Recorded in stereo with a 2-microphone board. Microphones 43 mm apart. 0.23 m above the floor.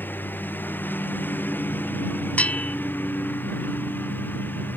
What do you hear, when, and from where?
0.0 s a lawn mower: 45° left (ahead or behind)
2.4 s a bell: 35° left (ahead or behind)